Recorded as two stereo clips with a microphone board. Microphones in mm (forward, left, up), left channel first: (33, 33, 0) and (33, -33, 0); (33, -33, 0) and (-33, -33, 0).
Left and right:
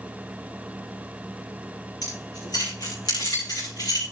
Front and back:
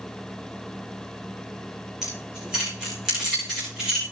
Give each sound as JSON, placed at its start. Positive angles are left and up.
{"t": 2.0, "sound": "keys jangling", "azimuth_deg": 100, "distance_m": 8.5}